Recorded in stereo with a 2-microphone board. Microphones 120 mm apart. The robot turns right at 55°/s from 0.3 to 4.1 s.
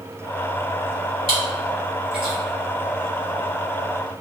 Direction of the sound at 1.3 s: 45° right (ahead or behind).